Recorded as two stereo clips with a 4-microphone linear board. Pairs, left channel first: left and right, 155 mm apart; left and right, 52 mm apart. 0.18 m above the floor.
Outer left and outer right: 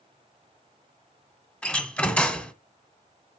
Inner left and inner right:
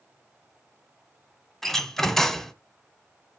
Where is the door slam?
10° left (ahead or behind), 1.1 m.